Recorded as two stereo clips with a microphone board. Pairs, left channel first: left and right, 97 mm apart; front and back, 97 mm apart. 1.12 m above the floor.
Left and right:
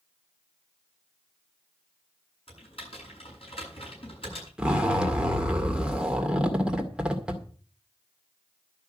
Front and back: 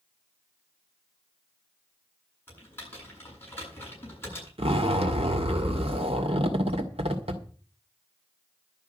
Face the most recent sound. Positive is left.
turn(degrees=-170)